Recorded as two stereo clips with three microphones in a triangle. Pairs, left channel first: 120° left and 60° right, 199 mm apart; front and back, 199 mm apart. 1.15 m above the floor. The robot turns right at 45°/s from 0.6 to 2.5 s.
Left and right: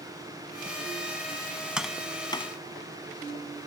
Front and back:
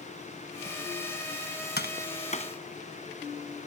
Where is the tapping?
25° left; by 2.5 s 60° left.